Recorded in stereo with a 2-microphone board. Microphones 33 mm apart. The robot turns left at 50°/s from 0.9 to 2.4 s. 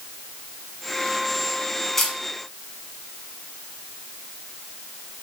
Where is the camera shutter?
5° left (ahead or behind), 1.6 m; by 2.2 s 10° left (ahead or behind), 1.6 m.